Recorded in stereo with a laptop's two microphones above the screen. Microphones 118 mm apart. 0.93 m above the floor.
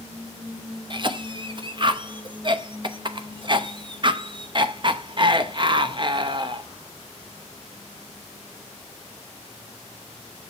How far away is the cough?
About 0.9 m.